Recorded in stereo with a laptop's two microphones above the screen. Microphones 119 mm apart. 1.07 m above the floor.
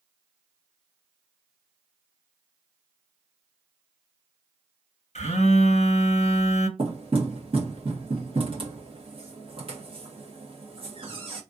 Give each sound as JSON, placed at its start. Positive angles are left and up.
{"t": 5.2, "sound": "a phone buzzing", "side_deg": 60, "distance_m": 0.8}
{"t": 6.8, "sound": "knocking", "side_deg": -50, "distance_m": 1.3}